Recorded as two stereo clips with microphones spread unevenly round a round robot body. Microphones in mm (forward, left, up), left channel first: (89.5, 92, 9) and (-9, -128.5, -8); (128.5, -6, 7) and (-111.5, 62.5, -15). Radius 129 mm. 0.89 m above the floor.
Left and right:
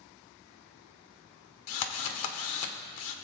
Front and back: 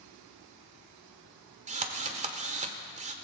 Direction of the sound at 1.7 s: 100° left.